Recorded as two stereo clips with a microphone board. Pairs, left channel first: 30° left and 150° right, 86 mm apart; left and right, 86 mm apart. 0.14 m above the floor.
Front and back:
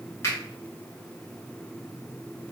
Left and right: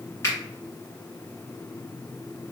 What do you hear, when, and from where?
0.2 s a finger snap: 55° left, 1.9 m